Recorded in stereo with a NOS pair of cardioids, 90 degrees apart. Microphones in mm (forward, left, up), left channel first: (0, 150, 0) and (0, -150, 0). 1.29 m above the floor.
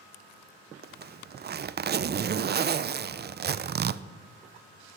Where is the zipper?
35° right, 0.6 m.